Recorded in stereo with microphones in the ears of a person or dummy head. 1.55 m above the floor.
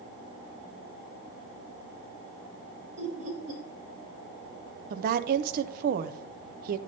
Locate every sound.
3.0 s laughter: 70° right (ahead or behind), 2.5 m
4.9 s a woman speaking: 50° right (ahead or behind), 0.5 m